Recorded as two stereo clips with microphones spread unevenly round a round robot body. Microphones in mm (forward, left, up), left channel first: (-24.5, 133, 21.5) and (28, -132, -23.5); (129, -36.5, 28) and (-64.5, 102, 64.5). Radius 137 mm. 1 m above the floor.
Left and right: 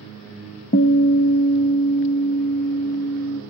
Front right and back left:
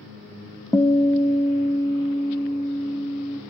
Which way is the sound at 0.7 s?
40° left.